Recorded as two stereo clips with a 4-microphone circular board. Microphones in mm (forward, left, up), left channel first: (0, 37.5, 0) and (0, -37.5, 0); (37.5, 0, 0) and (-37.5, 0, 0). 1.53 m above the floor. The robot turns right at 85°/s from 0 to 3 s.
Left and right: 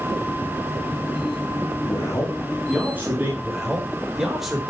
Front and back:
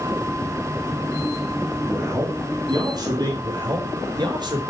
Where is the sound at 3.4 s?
175° right, 4.5 m.